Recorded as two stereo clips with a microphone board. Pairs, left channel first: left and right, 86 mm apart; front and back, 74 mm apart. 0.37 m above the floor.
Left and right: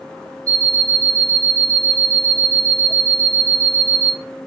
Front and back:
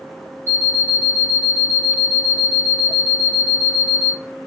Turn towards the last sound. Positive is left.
turn(degrees=-130)